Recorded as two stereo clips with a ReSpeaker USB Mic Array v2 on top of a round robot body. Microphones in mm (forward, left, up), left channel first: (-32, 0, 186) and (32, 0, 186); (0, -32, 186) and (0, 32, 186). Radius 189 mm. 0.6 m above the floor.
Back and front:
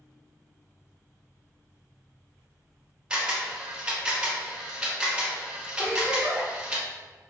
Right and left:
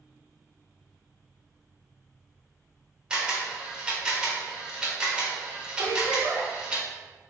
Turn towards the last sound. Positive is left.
turn(degrees=80)